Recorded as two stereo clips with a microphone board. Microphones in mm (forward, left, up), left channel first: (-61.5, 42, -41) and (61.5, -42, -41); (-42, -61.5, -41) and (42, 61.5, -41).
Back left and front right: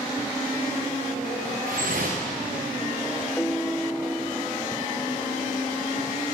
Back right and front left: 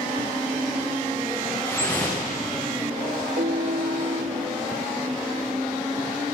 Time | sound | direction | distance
1.7 | dripping | 50° right | 5.5 m
3.4 | a piano | 60° left | 0.9 m